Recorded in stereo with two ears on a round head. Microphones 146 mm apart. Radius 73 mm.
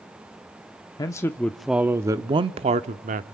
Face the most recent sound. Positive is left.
turn(degrees=-50)  # may be behind; listen again after turning